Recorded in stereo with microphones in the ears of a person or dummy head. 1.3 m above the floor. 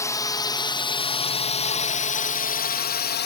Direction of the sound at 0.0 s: 10° left (ahead or behind).